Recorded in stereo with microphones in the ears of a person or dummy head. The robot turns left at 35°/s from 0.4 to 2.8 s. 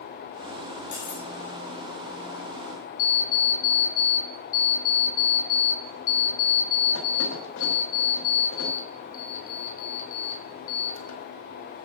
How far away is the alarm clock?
About 2.5 m.